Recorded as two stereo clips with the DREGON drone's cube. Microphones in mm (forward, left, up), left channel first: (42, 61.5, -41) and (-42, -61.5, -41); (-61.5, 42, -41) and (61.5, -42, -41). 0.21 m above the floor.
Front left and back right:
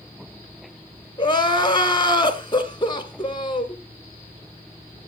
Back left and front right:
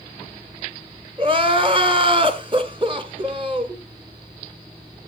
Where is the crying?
5° left, 1.3 m.